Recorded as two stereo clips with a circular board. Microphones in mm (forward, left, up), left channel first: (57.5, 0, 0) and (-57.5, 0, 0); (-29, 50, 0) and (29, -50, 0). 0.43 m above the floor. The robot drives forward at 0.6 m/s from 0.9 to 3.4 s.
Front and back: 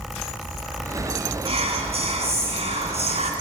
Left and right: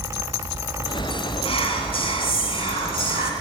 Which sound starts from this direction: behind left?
Whispering, at 1.4 s.